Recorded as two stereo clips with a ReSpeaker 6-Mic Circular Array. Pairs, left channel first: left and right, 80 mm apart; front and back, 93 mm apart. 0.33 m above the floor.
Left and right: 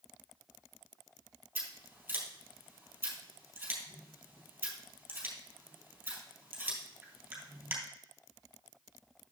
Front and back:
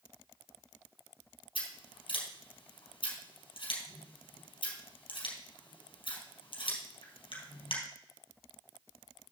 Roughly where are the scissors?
Ahead.